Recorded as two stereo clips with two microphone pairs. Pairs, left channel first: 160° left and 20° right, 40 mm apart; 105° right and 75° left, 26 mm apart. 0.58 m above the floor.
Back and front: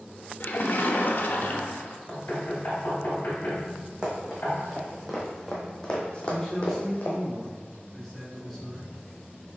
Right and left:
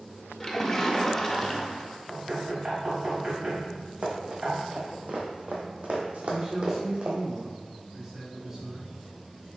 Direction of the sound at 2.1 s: 120° left.